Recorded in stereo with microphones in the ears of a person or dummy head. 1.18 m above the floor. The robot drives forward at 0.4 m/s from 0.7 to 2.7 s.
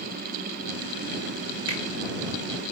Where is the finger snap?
80° left, 3 m.